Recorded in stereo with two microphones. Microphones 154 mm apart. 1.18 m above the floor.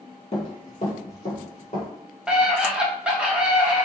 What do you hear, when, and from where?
0.3 s running footsteps: 45° left (ahead or behind), 1.8 m
2.3 s a scream: 5° right (ahead or behind), 0.6 m